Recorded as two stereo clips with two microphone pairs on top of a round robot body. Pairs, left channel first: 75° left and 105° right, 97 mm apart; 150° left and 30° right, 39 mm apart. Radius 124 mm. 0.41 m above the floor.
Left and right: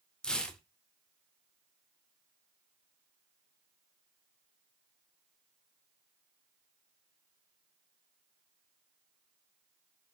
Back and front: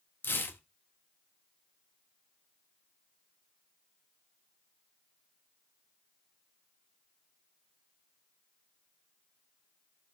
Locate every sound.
0.2 s tearing paper: 160° left, 0.7 m